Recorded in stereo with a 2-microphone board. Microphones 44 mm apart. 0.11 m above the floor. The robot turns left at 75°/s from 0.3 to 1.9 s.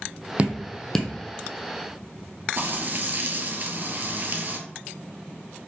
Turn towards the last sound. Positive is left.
turn(degrees=-40)  # may be behind; listen again after turning